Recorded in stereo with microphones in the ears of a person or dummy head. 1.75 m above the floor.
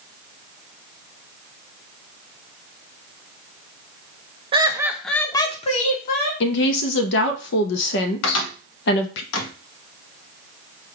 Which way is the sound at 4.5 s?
25° right (ahead or behind).